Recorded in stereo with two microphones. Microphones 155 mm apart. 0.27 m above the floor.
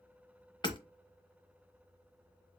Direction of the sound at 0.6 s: 30° left (ahead or behind).